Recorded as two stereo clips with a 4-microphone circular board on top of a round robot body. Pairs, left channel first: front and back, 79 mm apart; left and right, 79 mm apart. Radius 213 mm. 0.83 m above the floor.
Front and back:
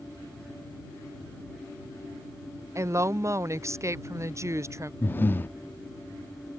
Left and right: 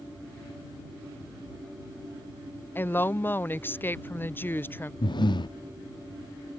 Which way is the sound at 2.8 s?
145° left.